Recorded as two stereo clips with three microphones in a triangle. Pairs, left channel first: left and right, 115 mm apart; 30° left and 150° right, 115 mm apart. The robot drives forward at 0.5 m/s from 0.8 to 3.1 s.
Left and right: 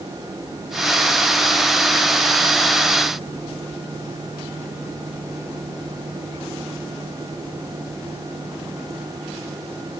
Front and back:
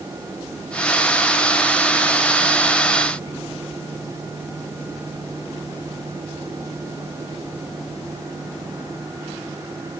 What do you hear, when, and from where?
Only background noise.